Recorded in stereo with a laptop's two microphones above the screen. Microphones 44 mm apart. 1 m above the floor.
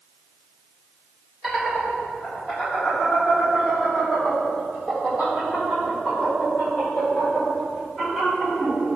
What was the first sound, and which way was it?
Laughter, 5° right (ahead or behind).